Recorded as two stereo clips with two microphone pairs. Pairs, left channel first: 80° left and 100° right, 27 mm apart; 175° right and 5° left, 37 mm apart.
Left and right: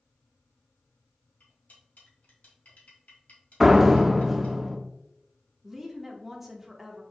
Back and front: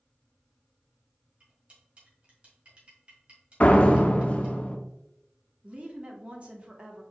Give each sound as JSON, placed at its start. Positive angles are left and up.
{"t": 1.4, "sound": "cutlery clinking", "azimuth_deg": 60, "distance_m": 1.7}
{"t": 3.6, "sound": "a door slam", "azimuth_deg": 180, "distance_m": 0.6}
{"t": 5.6, "sound": "a woman speaking", "azimuth_deg": -15, "distance_m": 1.0}